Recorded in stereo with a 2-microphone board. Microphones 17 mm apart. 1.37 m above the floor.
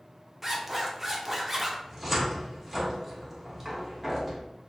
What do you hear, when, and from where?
0.4 s a zipper: 20° right (ahead or behind), 0.6 m
1.9 s a cupboard door: 10° right (ahead or behind), 0.8 m